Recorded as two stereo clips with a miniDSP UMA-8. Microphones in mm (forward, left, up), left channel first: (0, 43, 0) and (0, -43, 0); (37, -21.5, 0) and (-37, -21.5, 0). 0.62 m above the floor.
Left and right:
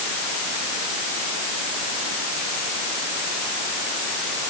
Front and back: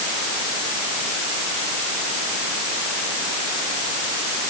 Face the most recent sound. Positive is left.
No sound to turn to.